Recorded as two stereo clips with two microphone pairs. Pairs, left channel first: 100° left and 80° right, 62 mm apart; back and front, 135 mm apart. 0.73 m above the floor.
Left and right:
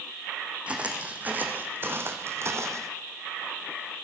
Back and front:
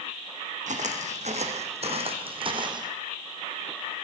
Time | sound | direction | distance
0.7 | footsteps | 10° right | 2 m